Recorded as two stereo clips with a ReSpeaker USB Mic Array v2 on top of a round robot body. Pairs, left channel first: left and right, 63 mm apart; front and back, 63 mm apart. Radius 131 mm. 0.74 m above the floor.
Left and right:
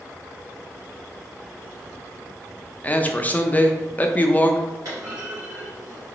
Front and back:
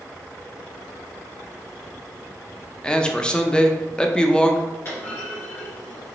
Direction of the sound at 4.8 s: 55° right.